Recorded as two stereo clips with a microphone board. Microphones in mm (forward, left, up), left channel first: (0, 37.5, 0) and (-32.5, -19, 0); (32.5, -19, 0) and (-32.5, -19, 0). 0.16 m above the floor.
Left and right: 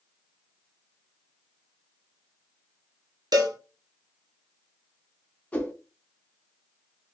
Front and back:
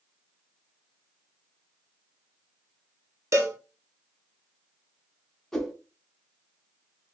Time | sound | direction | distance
3.3 | a cowbell | 130° right | 1.0 m
5.5 | a whoosh | 60° left | 1.0 m